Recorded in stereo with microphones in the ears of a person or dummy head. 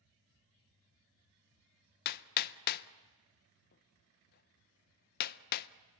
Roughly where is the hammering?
Left.